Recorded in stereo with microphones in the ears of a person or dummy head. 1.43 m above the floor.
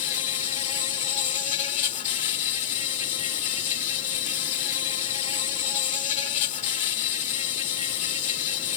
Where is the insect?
35° left (ahead or behind).